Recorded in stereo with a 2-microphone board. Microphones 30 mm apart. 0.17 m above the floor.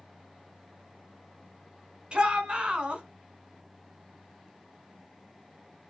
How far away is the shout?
About 2.0 m.